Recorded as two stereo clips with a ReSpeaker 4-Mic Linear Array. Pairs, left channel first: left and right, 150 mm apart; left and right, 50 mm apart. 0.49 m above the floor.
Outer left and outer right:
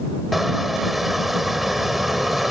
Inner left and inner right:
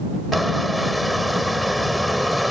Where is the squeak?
Centre (ahead or behind).